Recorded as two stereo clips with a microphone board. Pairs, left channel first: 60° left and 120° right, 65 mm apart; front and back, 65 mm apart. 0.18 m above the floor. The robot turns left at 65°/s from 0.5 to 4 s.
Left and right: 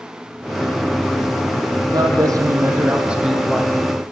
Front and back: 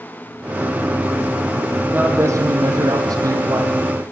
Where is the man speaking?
120° right, 5.5 m; by 3.8 s 120° left, 5.5 m.